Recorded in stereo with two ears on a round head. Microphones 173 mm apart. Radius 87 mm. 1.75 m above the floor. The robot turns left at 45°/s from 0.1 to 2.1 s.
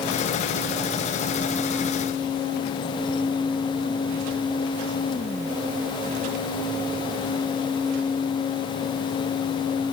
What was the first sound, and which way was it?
Only background noise.